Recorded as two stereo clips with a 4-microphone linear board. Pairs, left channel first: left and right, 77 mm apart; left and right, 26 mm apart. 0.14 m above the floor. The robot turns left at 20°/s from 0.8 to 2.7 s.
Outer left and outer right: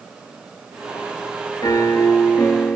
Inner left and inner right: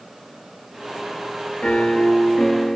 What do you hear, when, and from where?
1.6 s a piano: 50° left (ahead or behind), 0.8 m; by 2.8 s 35° left (ahead or behind), 0.8 m